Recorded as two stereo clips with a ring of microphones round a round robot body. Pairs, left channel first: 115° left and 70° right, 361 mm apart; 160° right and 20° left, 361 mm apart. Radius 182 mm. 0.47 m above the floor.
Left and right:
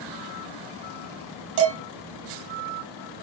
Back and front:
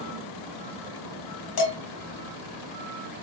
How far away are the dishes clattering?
About 1.8 m.